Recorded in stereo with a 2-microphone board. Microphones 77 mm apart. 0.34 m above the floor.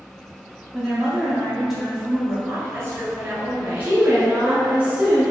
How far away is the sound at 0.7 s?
About 1.4 m.